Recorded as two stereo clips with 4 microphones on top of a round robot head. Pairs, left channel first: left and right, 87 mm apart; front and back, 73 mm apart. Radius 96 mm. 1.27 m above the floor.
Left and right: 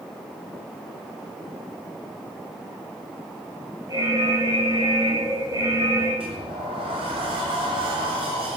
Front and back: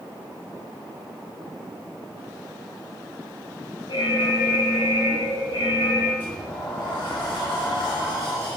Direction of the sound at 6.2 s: 70° right.